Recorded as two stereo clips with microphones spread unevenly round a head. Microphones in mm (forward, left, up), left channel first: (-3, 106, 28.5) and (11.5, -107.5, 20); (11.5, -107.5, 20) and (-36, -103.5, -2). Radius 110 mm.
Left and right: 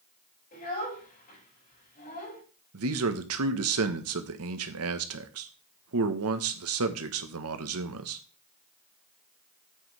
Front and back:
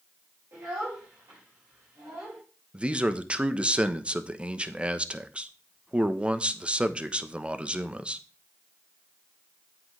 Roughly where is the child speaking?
Behind left.